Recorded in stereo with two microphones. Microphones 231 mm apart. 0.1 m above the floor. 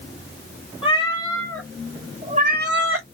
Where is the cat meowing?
25° left (ahead or behind), 1.4 m; by 3.0 s 70° right (ahead or behind), 0.8 m.